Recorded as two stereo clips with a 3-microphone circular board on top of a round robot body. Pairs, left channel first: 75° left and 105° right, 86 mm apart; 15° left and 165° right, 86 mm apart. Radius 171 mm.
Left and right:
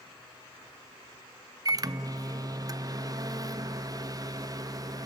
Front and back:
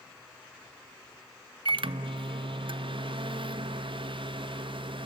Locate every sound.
1.6 s a microwave: 150° right, 0.6 m